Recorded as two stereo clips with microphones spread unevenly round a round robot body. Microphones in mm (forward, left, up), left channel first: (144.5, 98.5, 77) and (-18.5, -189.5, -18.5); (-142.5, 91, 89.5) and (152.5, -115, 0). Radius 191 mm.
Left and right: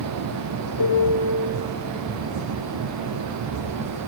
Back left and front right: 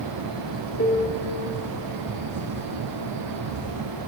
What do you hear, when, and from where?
0.8 s a piano: 75° left, 1.9 m